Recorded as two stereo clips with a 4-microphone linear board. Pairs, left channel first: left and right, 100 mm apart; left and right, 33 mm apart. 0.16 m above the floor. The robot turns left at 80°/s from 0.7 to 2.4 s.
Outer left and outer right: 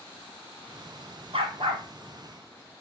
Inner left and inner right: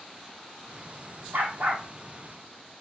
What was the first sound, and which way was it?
A dog barking, 105° right.